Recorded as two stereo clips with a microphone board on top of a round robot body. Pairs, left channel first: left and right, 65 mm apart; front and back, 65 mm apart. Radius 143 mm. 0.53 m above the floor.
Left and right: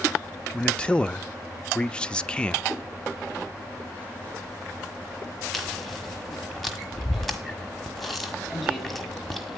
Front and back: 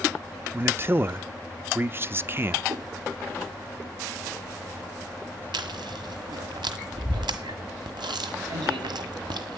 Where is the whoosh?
170° right, 1.4 m.